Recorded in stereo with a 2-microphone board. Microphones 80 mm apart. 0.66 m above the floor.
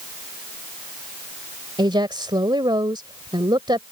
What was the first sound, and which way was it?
A woman speaking, 80° right.